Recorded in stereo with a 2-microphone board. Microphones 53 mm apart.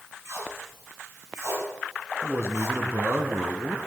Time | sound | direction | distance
0.2 | tape being pulled | 70° right (ahead or behind) | 5.5 m
2.2 | a man speaking | 55° right (ahead or behind) | 1.9 m